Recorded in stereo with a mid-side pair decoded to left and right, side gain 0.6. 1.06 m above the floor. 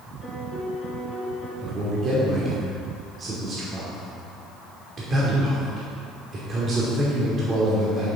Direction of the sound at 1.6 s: 35° right.